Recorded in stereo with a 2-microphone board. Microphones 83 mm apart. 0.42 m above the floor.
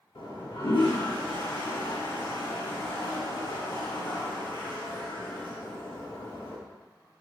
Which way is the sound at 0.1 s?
75° left (ahead or behind).